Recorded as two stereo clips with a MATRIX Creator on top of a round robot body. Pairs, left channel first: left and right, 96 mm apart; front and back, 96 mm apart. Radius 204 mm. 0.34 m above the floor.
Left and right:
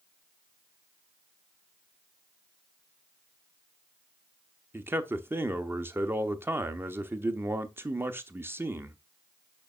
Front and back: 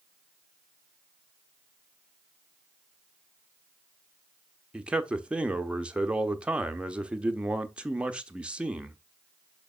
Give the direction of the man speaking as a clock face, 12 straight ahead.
4 o'clock.